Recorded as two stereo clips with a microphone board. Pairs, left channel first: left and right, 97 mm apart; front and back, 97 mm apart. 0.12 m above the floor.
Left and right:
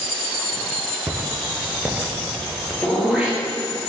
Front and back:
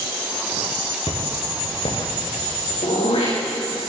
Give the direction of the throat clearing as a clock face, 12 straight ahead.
12 o'clock.